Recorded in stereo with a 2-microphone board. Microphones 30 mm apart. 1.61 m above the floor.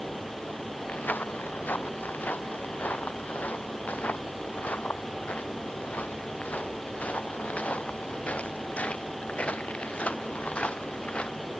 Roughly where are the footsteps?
Left.